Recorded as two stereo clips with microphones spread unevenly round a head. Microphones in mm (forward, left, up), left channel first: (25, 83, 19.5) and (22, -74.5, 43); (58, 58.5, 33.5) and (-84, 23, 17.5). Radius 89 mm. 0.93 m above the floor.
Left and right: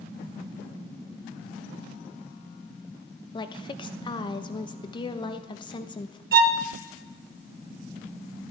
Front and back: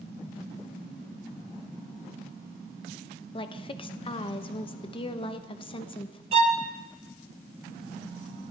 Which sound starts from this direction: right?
A violin, at 6.3 s.